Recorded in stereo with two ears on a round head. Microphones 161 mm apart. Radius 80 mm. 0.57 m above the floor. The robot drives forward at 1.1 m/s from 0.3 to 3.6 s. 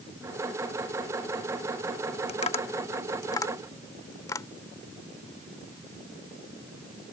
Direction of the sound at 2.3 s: 35° left (ahead or behind).